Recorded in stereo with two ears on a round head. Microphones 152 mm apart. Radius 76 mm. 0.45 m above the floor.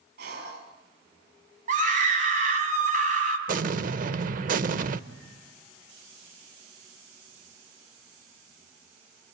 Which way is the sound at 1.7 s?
50° right (ahead or behind).